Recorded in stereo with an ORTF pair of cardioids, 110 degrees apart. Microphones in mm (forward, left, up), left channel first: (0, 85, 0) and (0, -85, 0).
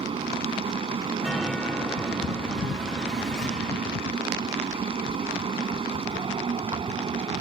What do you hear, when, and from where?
0.0 s a fan: 30° right
1.2 s a chime: 5° left